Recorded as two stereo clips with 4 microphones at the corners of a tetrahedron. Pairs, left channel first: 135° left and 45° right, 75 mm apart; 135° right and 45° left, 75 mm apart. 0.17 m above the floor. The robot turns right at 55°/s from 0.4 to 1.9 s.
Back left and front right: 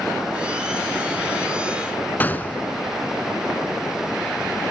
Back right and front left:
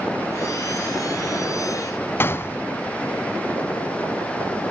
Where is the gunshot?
175° right, 0.7 m.